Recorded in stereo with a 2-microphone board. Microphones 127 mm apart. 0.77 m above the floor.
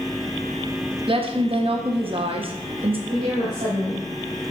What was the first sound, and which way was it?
A woman speaking, 45° right (ahead or behind).